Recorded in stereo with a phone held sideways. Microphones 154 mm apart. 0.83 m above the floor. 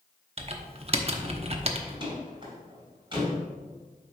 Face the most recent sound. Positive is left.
turn(degrees=-35)  # may be behind; listen again after turning